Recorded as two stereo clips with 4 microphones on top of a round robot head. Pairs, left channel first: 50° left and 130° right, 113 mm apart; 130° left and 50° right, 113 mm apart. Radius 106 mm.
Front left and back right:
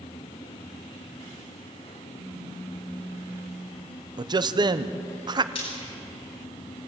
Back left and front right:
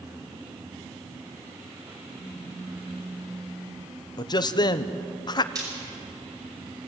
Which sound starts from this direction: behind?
A man speaking, at 4.2 s.